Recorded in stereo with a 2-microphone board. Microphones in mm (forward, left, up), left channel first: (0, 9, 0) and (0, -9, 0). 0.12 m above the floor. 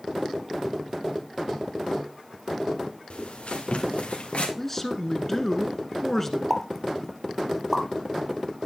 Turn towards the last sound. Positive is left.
turn(degrees=10)  # may be behind; listen again after turning